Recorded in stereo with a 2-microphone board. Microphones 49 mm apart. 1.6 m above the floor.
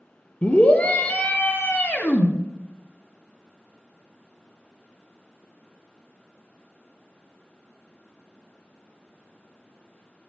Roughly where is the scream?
Left.